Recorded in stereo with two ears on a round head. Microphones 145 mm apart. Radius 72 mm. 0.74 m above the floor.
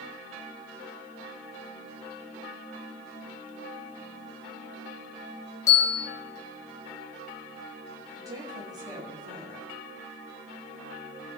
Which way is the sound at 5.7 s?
20° left (ahead or behind).